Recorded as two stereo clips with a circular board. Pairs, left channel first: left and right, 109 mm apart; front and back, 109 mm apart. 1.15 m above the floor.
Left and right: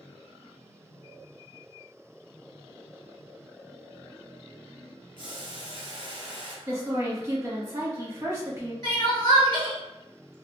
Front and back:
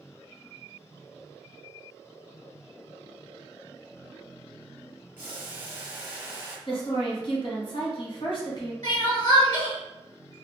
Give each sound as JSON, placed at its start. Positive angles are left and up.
{"t": 5.2, "sound": "boiling", "azimuth_deg": -115, "distance_m": 0.9}
{"t": 6.7, "sound": "a woman speaking", "azimuth_deg": -30, "distance_m": 1.2}
{"t": 8.8, "sound": "crying", "azimuth_deg": 45, "distance_m": 1.5}